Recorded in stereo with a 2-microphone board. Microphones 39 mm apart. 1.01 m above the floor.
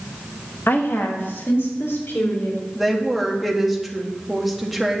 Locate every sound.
0.7 s a woman speaking: 70° left (ahead or behind), 1.1 m; by 2.6 s 80° left, 3 m
2.8 s a woman speaking: 5° right (ahead or behind), 1.3 m